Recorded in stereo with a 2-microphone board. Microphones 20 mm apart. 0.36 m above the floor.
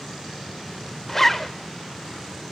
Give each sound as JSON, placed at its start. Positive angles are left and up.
{"t": 1.1, "sound": "a zipper", "side_deg": 15, "distance_m": 0.7}